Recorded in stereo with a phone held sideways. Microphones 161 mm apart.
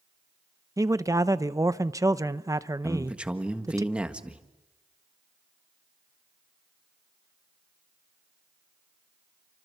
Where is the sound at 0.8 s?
20° right (ahead or behind), 0.7 m.